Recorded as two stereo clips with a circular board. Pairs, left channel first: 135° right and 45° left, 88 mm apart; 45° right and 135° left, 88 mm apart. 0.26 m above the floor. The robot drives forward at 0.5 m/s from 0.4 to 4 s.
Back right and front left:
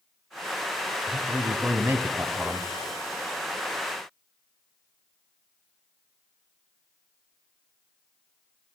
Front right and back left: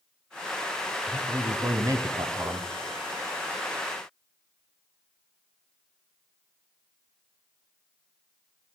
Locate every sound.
1.1 s a man speaking: 80° left, 1.5 m; by 2.7 s 115° left, 1.6 m